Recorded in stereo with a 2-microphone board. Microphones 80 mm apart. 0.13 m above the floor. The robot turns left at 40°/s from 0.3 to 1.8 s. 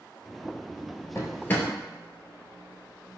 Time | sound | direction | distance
1.1 | a drawer | 35° left (ahead or behind) | 0.8 m